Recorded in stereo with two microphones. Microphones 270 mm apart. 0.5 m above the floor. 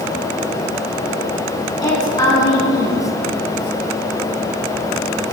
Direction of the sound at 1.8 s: 15° left (ahead or behind).